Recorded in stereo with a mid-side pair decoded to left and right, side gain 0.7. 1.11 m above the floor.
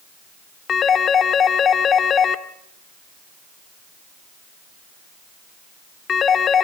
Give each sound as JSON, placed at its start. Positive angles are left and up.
{"t": 0.7, "sound": "a phone ringing", "azimuth_deg": 35, "distance_m": 1.5}